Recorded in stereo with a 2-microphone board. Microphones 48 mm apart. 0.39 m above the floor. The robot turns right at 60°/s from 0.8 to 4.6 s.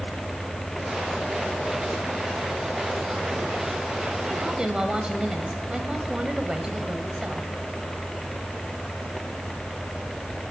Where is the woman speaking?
30° right (ahead or behind), 1.7 m; by 7.5 s 20° right (ahead or behind), 1.7 m.